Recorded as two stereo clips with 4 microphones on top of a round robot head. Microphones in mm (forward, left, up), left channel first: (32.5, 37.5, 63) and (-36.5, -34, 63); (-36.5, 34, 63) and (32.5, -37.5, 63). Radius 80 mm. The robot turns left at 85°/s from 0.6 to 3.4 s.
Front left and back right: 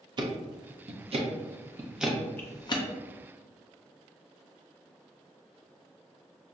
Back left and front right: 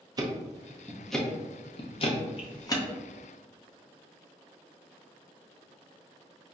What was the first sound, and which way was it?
Ticking, 95° right.